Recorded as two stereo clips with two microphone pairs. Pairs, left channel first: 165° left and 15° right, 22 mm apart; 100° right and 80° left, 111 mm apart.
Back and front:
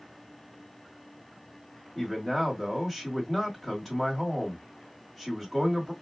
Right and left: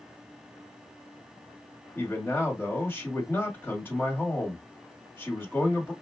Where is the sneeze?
No sneeze in this recording.